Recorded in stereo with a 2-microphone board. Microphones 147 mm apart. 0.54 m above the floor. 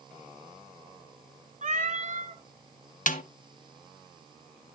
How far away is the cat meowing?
About 1.3 m.